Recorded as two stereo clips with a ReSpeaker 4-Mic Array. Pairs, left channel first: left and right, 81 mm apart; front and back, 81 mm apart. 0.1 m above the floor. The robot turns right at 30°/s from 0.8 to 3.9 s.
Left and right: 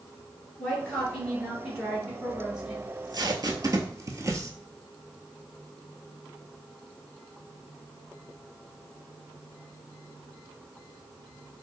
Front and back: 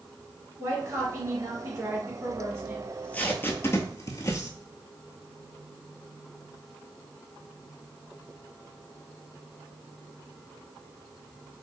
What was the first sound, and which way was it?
A woman speaking, 155° left.